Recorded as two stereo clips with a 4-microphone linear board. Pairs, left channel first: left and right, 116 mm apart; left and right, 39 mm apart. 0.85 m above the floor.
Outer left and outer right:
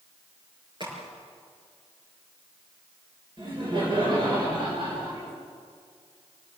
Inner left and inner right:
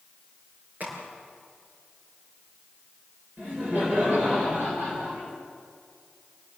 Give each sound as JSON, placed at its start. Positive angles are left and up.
{"t": 0.8, "sound": "a crack", "side_deg": -45, "distance_m": 6.5}
{"t": 3.4, "sound": "laughter", "side_deg": -45, "distance_m": 4.0}